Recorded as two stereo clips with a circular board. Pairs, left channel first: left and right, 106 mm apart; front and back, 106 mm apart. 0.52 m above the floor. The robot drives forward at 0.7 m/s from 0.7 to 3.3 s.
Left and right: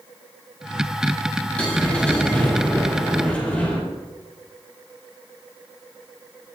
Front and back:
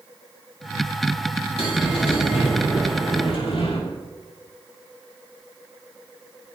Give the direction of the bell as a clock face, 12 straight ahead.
12 o'clock.